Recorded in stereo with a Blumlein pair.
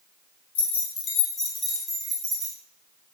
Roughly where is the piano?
I don't hear a piano.